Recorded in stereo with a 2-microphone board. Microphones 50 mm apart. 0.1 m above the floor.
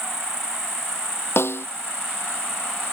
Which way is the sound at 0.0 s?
10° right (ahead or behind).